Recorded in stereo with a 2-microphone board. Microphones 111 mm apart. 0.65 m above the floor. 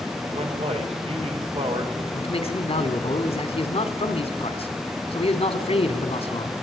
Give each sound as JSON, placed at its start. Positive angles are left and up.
{"t": 0.3, "sound": "a man speaking", "side_deg": -65, "distance_m": 2.5}
{"t": 2.1, "sound": "a man speaking", "side_deg": 65, "distance_m": 1.7}